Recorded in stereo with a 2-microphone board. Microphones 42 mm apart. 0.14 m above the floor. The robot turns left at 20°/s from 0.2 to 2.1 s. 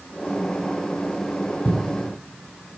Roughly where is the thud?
Left.